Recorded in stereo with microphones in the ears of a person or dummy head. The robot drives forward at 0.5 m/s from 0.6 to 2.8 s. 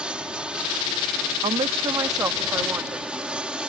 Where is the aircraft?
5° right (ahead or behind).